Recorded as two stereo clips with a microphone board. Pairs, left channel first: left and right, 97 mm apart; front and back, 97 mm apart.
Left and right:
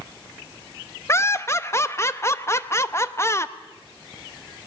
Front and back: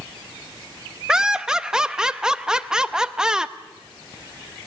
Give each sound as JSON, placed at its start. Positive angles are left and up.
{"t": 1.1, "sound": "laughter", "azimuth_deg": 105, "distance_m": 0.7}